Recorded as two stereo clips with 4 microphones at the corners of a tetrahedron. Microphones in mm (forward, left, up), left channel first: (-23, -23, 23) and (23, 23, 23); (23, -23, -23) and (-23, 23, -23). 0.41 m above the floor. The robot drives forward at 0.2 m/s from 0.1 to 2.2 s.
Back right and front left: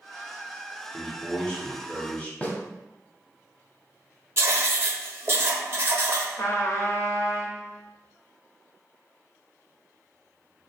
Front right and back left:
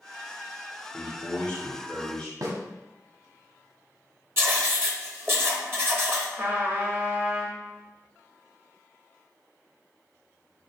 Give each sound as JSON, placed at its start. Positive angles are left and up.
{"t": 0.9, "sound": "a man speaking", "azimuth_deg": -70, "distance_m": 1.0}
{"t": 2.4, "sound": "a snare drum", "azimuth_deg": 160, "distance_m": 0.8}
{"t": 4.4, "sound": "writing", "azimuth_deg": 90, "distance_m": 0.6}
{"t": 6.4, "sound": "a trumpet", "azimuth_deg": -165, "distance_m": 0.6}